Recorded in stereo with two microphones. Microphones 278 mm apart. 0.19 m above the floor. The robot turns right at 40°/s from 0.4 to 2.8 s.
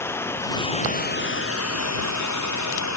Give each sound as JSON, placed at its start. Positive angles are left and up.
{"t": 0.0, "sound": "running water", "azimuth_deg": 10}